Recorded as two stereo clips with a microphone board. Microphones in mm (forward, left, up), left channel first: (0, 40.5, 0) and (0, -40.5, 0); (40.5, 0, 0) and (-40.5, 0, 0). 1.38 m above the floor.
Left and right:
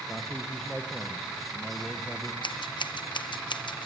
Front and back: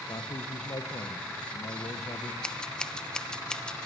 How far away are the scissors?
About 0.8 m.